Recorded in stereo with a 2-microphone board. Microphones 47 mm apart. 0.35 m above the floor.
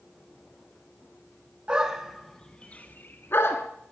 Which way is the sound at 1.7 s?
20° right (ahead or behind).